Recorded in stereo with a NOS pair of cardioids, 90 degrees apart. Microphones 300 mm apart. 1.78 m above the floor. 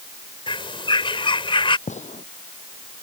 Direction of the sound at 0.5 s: 15° left.